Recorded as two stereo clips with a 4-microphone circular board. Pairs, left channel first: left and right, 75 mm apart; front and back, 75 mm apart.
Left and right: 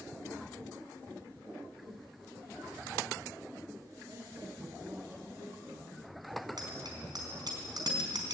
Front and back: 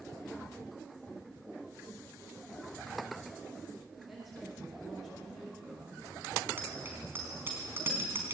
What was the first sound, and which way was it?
A woman speaking, 100° right.